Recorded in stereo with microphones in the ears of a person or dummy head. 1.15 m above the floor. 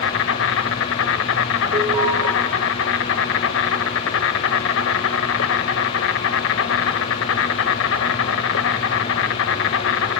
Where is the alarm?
20° right (ahead or behind), 6.5 m.